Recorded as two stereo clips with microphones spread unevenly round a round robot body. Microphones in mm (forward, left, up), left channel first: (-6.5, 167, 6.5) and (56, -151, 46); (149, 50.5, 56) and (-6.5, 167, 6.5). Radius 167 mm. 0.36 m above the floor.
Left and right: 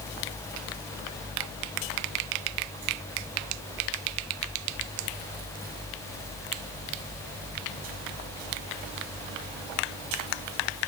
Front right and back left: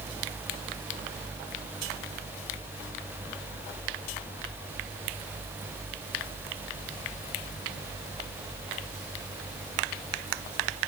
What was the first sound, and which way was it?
Only background noise.